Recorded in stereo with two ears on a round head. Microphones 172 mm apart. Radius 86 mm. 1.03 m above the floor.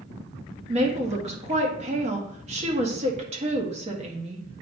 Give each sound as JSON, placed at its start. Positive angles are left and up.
{"t": 0.7, "sound": "a woman speaking", "side_deg": -35, "distance_m": 1.5}